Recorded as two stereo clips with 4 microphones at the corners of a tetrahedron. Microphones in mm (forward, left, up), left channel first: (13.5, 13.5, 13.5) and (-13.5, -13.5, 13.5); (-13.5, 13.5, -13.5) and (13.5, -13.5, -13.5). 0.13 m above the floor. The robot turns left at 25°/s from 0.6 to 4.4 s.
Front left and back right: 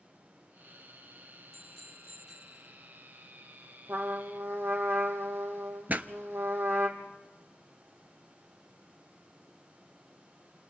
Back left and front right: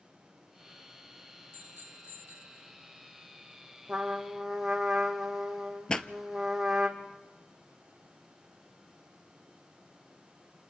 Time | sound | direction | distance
1.5 | a bicycle bell | 35° right | 2.5 m
3.9 | a trumpet | 115° right | 2 m
5.9 | a pop | 165° right | 0.8 m